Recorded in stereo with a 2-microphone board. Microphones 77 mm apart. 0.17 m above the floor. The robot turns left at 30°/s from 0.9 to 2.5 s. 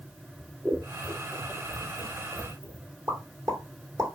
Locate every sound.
0.4 s scissors: 10° right (ahead or behind), 1.1 m; by 2.9 s 55° right (ahead or behind), 1.1 m
3.1 s a pop: 55° right (ahead or behind), 3 m